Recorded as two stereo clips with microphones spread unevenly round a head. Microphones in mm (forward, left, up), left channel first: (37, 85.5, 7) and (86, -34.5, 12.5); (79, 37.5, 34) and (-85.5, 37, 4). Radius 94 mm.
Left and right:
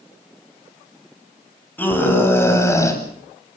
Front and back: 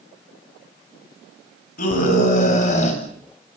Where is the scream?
35° left, 9 m; by 3.0 s 45° left, 9 m.